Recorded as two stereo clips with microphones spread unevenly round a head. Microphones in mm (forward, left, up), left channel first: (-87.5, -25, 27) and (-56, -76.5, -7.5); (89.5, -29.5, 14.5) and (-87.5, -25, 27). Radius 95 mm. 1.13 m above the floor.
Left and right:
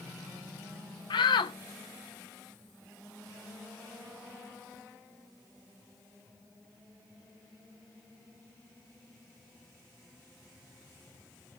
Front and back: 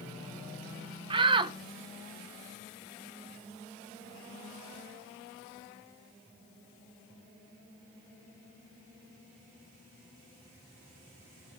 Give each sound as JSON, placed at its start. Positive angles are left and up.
{"t": 1.1, "sound": "a shout", "azimuth_deg": 115, "distance_m": 1.0}